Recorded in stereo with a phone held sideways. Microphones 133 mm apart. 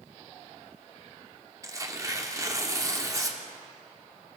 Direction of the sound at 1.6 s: 25° right (ahead or behind).